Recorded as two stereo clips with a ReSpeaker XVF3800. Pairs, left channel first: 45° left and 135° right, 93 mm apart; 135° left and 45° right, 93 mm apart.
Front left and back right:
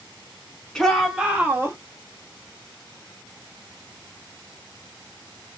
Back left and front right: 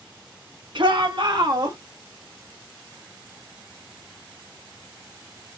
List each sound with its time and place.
0.8 s a shout: 40° right, 2.5 m; by 1.8 s 80° right, 2 m